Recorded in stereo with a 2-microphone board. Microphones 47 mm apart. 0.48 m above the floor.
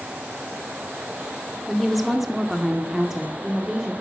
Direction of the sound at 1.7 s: Centre (ahead or behind).